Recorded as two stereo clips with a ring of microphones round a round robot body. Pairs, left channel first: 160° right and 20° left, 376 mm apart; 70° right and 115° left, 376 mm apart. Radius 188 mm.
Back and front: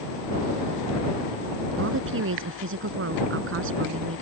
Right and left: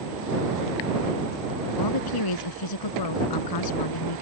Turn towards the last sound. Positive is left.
turn(degrees=-35)